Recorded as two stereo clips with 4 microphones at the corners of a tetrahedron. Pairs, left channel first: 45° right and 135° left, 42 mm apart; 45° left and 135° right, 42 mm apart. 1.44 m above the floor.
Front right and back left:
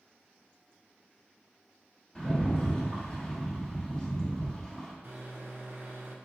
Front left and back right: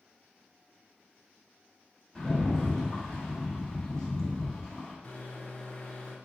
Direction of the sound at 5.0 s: 100° left.